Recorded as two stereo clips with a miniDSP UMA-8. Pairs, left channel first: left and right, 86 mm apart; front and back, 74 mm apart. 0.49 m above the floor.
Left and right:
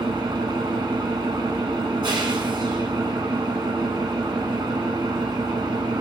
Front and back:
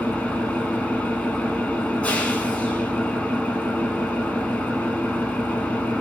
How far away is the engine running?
About 1.3 m.